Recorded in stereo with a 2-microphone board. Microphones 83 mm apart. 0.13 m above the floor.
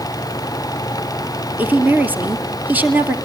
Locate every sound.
1.6 s a woman speaking: 20° right (ahead or behind), 2.5 m